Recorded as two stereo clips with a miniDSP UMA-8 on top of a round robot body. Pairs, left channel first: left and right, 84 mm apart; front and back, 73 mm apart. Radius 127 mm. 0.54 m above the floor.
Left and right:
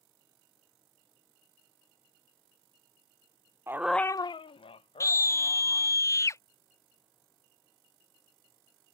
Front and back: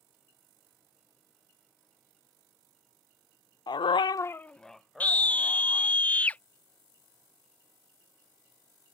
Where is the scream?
60° left.